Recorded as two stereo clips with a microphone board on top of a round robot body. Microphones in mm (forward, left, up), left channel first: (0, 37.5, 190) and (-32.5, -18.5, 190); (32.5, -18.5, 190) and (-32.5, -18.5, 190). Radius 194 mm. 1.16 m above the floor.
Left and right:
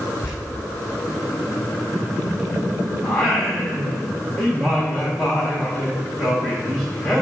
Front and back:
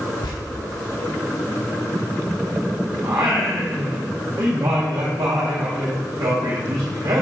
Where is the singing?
145° left, 0.7 m.